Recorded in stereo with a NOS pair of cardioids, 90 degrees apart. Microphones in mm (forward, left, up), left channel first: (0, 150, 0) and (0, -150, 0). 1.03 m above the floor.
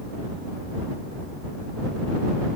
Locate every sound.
Only background noise.